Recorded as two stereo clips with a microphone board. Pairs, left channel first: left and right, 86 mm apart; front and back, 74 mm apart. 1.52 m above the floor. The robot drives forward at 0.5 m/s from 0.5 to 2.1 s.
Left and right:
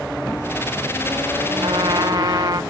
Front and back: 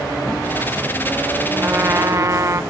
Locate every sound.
1.6 s a trumpet: 115° right; by 2.6 s 130° right